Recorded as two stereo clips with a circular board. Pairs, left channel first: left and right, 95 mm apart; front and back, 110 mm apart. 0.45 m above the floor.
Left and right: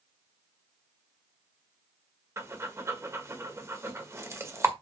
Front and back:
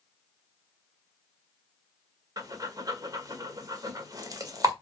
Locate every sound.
2.4 s breathing: 140° right, 1.6 m